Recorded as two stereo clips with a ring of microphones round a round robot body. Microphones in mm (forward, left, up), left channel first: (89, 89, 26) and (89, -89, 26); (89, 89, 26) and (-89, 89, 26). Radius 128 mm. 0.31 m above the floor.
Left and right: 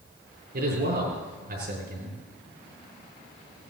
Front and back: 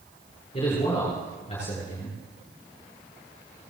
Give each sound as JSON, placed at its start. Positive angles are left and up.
{"t": 0.5, "sound": "a man speaking", "azimuth_deg": -65, "distance_m": 6.5}